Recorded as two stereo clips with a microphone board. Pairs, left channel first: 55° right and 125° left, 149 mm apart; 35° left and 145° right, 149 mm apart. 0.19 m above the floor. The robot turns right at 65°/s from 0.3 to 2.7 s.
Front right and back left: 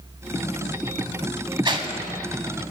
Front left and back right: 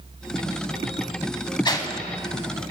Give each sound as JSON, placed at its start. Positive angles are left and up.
{"t": 1.6, "sound": "a whoosh", "azimuth_deg": 80, "distance_m": 0.7}